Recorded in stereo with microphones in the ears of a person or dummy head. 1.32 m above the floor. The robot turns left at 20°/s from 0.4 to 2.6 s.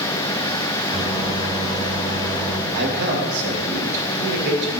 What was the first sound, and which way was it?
A microwave, 25° right.